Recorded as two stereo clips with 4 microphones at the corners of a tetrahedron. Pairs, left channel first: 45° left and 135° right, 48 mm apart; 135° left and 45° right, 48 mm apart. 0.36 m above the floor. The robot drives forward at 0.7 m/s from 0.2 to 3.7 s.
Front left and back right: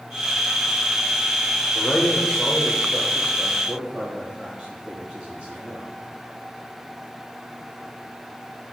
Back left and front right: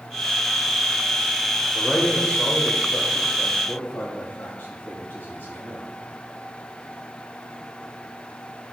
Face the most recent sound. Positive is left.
turn(degrees=165)